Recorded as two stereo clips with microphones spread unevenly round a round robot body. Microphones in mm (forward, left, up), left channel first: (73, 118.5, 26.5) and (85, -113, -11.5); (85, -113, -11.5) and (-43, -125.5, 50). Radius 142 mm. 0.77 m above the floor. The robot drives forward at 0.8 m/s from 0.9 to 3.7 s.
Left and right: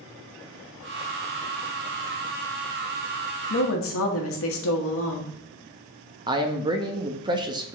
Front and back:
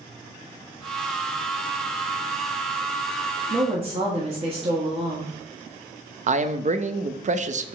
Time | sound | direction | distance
3.5 | a woman speaking | 105° left | 1.2 m
6.3 | a man speaking | 135° right | 0.6 m